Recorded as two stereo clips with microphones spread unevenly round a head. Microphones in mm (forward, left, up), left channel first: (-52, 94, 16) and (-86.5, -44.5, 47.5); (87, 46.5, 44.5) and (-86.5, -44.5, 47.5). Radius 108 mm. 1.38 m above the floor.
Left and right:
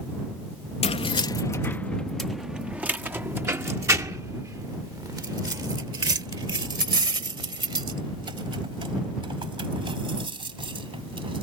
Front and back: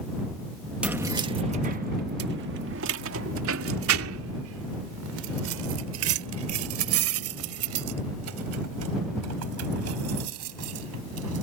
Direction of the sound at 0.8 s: 125° left.